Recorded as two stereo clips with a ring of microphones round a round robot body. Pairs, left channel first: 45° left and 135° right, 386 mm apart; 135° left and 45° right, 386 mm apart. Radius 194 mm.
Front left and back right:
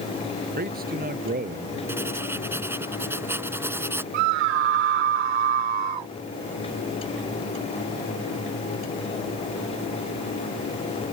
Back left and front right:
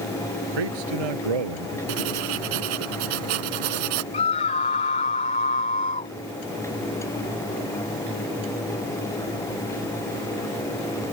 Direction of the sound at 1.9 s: 50° right.